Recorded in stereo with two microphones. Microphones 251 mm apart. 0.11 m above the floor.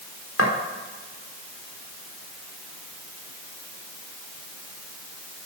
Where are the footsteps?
60° left (ahead or behind), 4 m.